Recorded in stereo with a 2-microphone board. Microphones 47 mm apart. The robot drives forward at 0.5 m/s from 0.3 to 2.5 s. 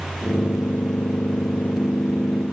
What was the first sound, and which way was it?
Only background noise.